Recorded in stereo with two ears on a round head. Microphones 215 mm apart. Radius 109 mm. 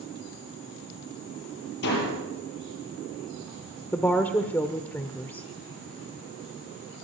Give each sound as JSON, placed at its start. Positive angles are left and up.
{"t": 1.8, "sound": "a door slam", "side_deg": 45, "distance_m": 7.5}
{"t": 3.9, "sound": "a woman speaking", "side_deg": 10, "distance_m": 0.9}